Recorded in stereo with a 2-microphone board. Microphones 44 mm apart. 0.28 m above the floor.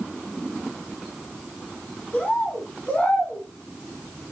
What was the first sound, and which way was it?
A bird, 35° left (ahead or behind).